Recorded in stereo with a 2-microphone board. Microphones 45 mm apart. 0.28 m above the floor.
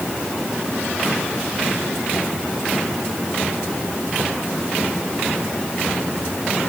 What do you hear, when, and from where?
Only background noise.